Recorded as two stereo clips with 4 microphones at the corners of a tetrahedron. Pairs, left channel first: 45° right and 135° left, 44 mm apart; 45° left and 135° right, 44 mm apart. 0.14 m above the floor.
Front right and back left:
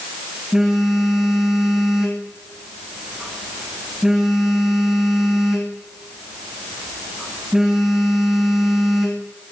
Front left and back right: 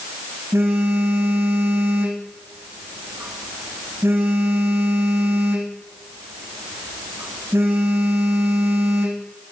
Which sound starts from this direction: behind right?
A phone buzzing, at 0.5 s.